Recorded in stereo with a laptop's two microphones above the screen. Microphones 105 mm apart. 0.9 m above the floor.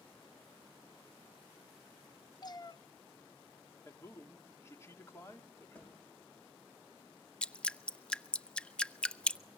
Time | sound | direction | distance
2.4 | a cat meowing | 40° left (ahead or behind) | 0.5 m
3.9 | a man speaking | 25° left (ahead or behind) | 2.5 m
5.8 | a thud | 15° left (ahead or behind) | 9.5 m
7.4 | dripping | 10° left (ahead or behind) | 0.7 m